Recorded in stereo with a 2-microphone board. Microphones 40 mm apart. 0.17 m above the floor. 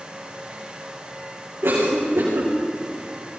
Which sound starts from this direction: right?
A cough, at 1.6 s.